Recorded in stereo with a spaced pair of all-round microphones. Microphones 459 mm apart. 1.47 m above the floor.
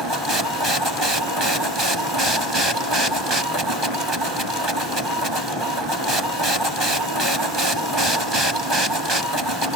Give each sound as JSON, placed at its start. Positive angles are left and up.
{"t": 0.0, "sound": "a machine running", "side_deg": -65}